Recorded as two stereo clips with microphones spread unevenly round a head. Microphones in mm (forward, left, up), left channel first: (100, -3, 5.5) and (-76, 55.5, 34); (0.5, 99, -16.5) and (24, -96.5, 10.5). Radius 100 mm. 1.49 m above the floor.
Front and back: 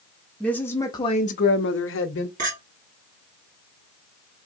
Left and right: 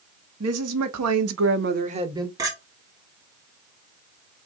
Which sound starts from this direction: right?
A woman speaking, at 0.4 s.